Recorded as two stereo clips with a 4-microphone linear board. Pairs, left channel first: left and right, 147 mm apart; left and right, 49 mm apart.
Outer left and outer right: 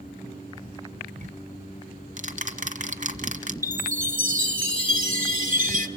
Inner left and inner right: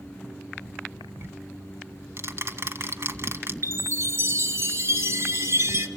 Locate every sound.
1.2 s ticking: 55° right (ahead or behind), 1.6 m
3.6 s a chime: 60° right (ahead or behind), 1.4 m